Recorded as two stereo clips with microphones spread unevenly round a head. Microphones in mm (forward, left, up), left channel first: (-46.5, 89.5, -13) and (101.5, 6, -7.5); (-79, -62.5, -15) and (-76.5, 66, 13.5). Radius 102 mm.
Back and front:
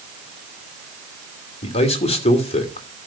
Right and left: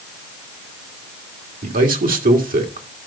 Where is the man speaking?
100° left, 2.5 m.